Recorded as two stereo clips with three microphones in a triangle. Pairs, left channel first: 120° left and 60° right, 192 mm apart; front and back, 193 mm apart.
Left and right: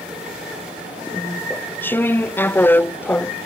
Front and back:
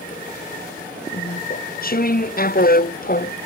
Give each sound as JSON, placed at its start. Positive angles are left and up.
{"t": 1.1, "sound": "chewing", "azimuth_deg": 40}